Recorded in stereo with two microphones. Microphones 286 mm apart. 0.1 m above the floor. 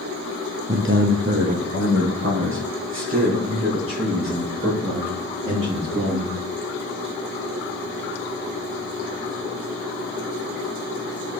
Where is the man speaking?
40° right (ahead or behind), 1.7 m; by 6.3 s 45° right (ahead or behind), 10 m.